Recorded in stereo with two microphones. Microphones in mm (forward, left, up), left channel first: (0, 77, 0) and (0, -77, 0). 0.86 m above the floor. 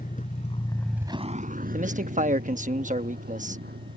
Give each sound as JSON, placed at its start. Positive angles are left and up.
{"t": 0.0, "sound": "a vehicle", "side_deg": 60}
{"t": 1.7, "sound": "a man speaking", "side_deg": -55}